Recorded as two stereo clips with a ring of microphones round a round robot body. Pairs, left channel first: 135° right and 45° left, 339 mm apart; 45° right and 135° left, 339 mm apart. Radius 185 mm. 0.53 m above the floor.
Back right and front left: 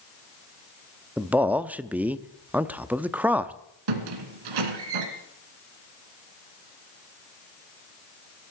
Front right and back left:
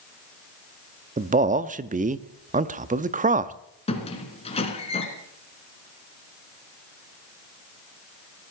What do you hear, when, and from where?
1.2 s a man speaking: 125° left, 0.8 m
3.9 s a squeak: 30° left, 2 m